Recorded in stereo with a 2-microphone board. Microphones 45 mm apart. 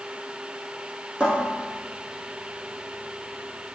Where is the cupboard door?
20° right (ahead or behind), 2.5 m.